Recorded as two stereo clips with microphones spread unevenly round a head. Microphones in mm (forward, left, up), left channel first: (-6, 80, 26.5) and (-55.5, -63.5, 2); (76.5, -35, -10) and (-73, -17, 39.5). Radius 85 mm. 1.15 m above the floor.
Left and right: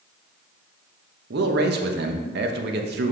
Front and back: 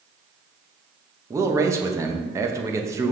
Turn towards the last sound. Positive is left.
turn(degrees=-115)